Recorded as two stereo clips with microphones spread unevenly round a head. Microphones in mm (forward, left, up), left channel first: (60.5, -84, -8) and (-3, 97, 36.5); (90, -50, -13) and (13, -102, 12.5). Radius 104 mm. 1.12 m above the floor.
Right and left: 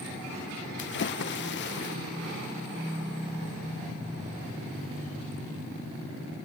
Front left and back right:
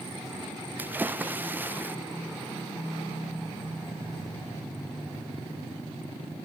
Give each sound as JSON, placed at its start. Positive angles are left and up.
{"t": 0.8, "sound": "a splash", "azimuth_deg": -70, "distance_m": 0.7}